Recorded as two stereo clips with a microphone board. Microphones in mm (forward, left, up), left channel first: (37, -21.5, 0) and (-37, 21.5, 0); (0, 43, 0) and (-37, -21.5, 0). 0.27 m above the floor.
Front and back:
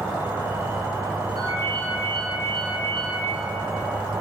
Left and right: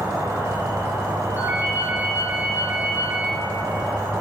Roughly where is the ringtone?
Behind.